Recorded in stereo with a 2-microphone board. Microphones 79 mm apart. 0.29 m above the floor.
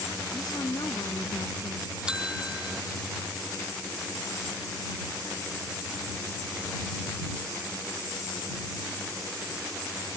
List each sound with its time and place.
0.3 s a woman speaking: 55° left (ahead or behind)
2.1 s a bell: 10° right (ahead or behind)